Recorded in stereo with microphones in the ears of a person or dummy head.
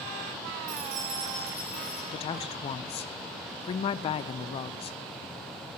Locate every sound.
0.7 s keys jangling: 40° right (ahead or behind), 1.4 m; by 2.0 s centre (ahead or behind), 2.5 m
2.1 s a woman speaking: 35° left (ahead or behind), 0.5 m